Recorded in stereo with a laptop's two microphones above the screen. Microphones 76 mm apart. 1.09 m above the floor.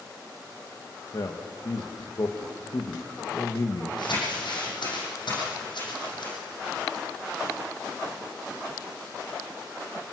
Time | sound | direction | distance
1.1 | a man speaking | 60° left (ahead or behind) | 1.5 m
4.0 | crumpling | 75° left (ahead or behind) | 8 m